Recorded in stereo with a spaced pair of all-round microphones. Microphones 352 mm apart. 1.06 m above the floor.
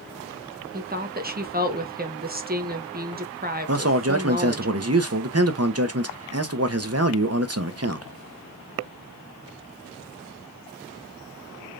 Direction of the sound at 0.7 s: 25° right (ahead or behind).